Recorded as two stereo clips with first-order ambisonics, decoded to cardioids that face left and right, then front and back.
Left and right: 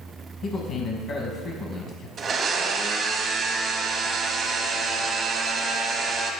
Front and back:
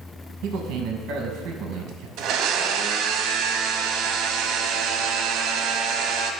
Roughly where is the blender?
Behind right.